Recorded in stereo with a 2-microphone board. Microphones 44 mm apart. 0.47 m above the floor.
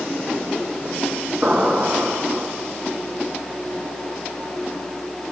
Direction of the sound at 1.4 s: 35° right (ahead or behind).